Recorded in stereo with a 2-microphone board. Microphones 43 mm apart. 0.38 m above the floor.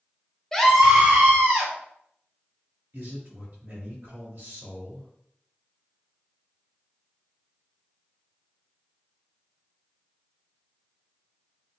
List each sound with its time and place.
0.5 s a scream: 10° left (ahead or behind), 0.9 m; by 1.7 s 55° right (ahead or behind), 1.4 m
2.9 s a man speaking: 55° right (ahead or behind), 2.0 m